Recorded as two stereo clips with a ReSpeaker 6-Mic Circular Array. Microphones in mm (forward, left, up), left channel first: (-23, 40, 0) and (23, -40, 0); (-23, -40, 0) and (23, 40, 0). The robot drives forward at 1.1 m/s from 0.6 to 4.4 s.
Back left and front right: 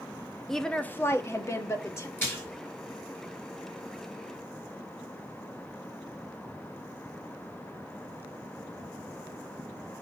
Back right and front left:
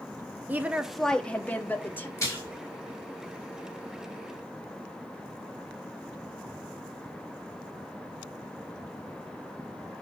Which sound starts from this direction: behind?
A splash, at 2.2 s.